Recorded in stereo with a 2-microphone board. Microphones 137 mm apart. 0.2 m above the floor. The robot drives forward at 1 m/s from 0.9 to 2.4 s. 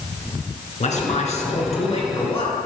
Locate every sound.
0.8 s a man speaking: 55° left (ahead or behind), 3 m; by 2.7 s 40° left (ahead or behind), 3.5 m